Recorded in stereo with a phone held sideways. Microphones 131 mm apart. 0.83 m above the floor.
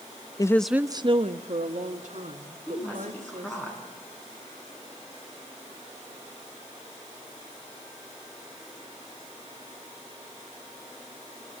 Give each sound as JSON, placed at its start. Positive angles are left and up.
{"t": 0.4, "sound": "a woman speaking", "side_deg": 30, "distance_m": 0.5}
{"t": 2.7, "sound": "a woman speaking", "side_deg": 15, "distance_m": 7.5}